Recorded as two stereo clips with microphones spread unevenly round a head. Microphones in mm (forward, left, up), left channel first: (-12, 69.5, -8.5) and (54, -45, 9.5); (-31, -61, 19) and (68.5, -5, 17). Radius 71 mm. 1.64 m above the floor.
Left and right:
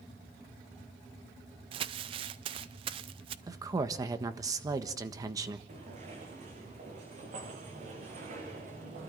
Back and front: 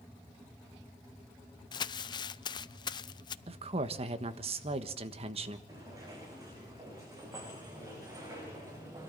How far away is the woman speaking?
About 1.4 m.